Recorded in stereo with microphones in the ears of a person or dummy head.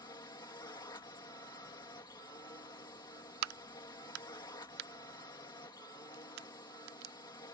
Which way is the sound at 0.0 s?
20° left (ahead or behind).